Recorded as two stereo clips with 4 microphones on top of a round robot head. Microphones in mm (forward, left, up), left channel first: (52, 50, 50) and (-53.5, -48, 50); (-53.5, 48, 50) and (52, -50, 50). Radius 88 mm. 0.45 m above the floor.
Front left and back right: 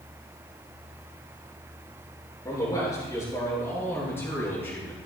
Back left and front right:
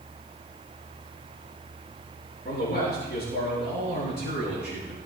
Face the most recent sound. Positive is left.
turn(degrees=125)